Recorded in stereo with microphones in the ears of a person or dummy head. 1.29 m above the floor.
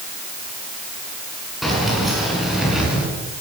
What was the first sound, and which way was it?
Keys jangling, 5° right (ahead or behind).